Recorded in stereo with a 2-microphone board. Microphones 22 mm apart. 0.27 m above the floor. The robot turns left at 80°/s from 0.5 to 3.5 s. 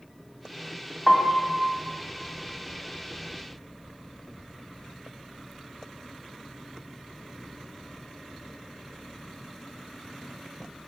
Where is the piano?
170° left, 1.1 m; by 1.5 s 135° left, 1.1 m.